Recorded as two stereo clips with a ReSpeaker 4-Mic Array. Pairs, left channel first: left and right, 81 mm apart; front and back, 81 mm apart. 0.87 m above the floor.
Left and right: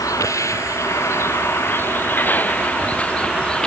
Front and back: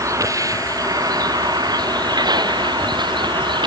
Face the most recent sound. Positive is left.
turn(degrees=170)